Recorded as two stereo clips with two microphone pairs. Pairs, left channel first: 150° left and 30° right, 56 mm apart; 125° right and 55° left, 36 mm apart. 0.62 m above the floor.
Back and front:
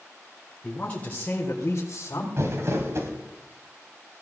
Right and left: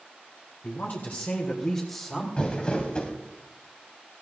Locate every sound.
0.6 s a woman speaking: 140° right, 3 m; by 2.3 s 160° left, 2.5 m
2.4 s crumpling: 60° right, 2.5 m